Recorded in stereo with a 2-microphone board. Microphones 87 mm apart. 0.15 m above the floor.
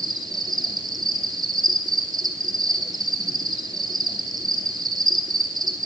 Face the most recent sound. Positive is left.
turn(degrees=-55)  # may be behind; listen again after turning